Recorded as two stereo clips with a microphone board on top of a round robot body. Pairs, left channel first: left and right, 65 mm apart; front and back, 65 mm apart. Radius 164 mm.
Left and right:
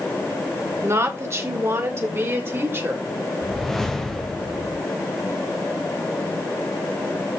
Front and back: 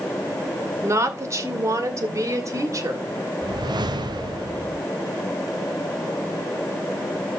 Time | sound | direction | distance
0.8 | a woman speaking | 135° right | 2.5 m
3.4 | a whoosh | 175° left | 1.1 m